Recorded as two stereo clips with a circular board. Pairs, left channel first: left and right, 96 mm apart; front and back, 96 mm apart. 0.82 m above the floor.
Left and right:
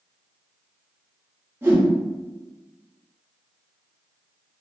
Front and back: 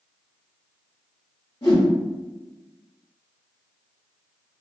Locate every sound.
1.6 s a whoosh: 30° right, 1.5 m